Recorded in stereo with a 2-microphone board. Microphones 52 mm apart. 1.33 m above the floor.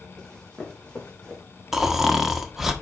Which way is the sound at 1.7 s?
5° right (ahead or behind).